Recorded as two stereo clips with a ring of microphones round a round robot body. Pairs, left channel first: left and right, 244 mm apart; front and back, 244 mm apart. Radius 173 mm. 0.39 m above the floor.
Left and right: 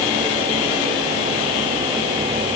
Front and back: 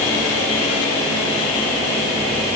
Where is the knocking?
I don't hear knocking.